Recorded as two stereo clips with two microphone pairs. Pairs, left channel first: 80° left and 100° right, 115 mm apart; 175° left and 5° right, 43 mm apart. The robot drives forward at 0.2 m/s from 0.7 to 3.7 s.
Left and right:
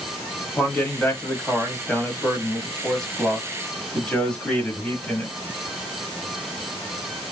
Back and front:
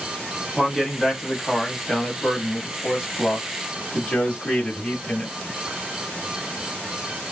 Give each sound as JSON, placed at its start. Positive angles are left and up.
{"t": 0.6, "sound": "a man speaking", "azimuth_deg": 50, "distance_m": 1.0}